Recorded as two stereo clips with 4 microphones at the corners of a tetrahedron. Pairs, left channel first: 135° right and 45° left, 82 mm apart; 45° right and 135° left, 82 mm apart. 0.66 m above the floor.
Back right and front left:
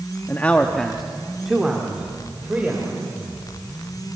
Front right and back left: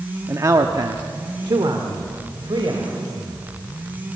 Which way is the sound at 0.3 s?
170° left.